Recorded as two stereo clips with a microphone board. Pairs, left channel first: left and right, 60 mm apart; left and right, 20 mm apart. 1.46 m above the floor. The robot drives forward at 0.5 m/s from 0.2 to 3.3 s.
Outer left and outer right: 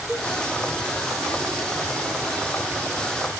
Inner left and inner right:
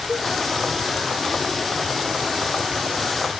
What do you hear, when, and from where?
0.1 s a cowbell: 5° left (ahead or behind), 1.2 m